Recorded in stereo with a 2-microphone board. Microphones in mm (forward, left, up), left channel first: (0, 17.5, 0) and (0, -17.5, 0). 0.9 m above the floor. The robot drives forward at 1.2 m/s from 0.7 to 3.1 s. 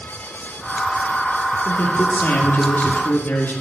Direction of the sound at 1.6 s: 45° left (ahead or behind).